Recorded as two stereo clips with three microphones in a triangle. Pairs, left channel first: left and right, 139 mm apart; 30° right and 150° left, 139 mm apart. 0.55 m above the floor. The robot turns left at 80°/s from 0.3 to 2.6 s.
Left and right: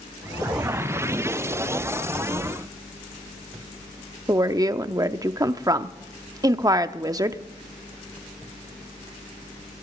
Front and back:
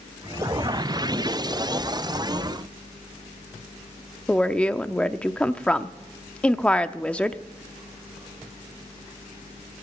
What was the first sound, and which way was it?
A woman speaking, 105° right.